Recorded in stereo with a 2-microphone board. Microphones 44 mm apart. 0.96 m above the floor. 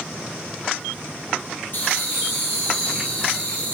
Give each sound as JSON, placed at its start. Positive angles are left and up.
{"t": 1.7, "sound": "laughter", "side_deg": 50, "distance_m": 1.3}